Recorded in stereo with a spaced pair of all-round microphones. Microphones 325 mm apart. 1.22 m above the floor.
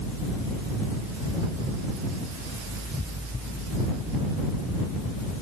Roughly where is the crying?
No crying in this recording.